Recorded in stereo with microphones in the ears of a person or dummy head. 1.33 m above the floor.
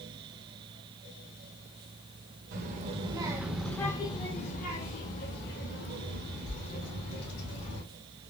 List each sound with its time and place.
2.5 s a child speaking: 50° right (ahead or behind), 1.1 m; by 7.8 s 65° left (ahead or behind), 3.5 m